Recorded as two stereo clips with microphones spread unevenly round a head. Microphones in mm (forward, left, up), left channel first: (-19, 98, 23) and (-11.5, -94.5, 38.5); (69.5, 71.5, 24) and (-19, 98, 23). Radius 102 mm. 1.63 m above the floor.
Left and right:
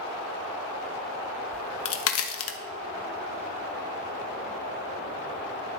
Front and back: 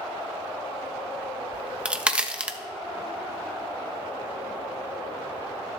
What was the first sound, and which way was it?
A crack, 85° left.